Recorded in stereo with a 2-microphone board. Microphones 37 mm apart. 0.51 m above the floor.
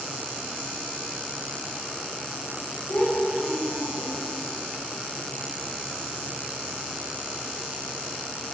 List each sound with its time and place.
2.9 s a child speaking: 55° left (ahead or behind), 4.5 m